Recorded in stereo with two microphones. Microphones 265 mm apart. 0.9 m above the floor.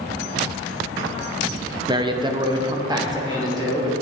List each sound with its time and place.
1.9 s a man speaking: 15° right (ahead or behind), 0.5 m